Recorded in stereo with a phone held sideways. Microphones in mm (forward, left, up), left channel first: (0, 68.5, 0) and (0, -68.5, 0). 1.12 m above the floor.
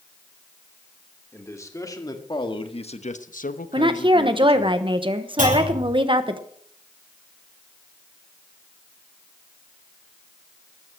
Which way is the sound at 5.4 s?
85° right.